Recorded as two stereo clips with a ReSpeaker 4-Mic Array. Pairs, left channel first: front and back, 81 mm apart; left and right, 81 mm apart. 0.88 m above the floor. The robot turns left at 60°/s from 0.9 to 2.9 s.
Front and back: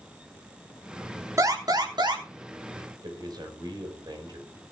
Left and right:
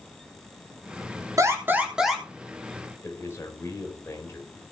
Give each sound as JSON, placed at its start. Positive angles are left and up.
{"t": 1.4, "sound": "an alarm", "azimuth_deg": -130, "distance_m": 3.5}
{"t": 3.0, "sound": "a man speaking", "azimuth_deg": 150, "distance_m": 4.0}